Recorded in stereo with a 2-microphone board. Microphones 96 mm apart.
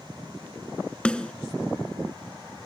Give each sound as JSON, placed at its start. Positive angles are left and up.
{"t": 1.1, "sound": "a snare drum", "side_deg": 10, "distance_m": 0.8}